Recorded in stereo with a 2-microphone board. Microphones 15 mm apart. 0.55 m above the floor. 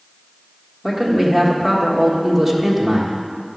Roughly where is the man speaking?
Centre.